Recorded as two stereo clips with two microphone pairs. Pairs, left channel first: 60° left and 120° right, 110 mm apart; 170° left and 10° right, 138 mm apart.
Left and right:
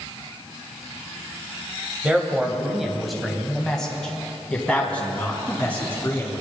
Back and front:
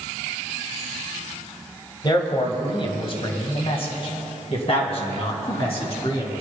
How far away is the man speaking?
About 1.6 m.